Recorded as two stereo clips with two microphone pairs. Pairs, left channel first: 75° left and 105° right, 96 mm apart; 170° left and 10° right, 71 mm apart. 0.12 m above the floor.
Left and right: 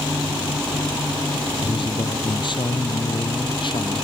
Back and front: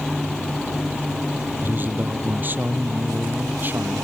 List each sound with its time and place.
1.6 s a man speaking: 50° left